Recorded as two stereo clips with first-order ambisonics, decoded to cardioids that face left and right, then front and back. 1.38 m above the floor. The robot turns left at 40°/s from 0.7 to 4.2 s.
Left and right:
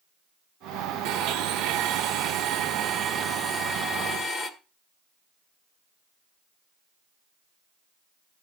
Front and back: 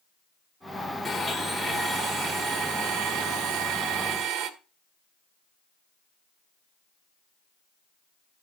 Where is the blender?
85° right, 1.7 m; by 4.5 s 145° left, 1.7 m.